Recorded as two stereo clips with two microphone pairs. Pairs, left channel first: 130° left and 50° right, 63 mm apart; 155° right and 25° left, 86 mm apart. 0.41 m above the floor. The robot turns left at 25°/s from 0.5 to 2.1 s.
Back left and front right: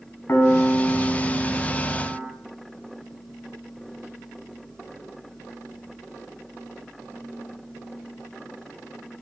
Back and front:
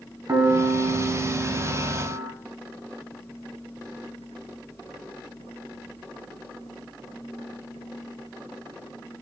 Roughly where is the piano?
Left.